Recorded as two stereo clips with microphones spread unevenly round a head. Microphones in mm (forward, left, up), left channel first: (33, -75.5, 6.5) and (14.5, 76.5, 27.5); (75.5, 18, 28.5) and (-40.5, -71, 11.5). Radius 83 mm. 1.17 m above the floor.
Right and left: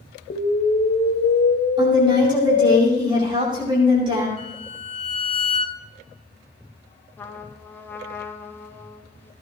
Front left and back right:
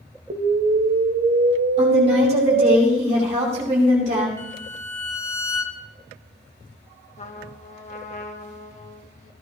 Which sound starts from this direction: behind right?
An explosion, at 0.3 s.